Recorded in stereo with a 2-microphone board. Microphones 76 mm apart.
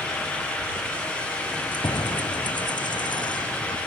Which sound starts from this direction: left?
Keys jangling, at 1.5 s.